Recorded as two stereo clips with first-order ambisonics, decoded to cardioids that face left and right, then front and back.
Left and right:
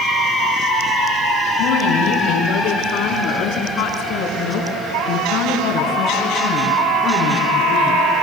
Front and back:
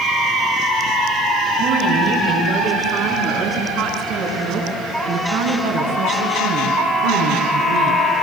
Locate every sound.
1.6 s a woman speaking: 125° left, 9 m; by 8.0 s 165° left, 6.5 m